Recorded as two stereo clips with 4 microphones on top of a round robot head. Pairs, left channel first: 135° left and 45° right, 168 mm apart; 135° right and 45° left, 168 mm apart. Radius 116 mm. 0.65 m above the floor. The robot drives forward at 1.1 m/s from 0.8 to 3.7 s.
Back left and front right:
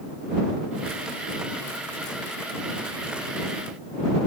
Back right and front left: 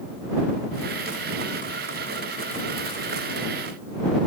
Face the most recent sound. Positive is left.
No sound to turn to.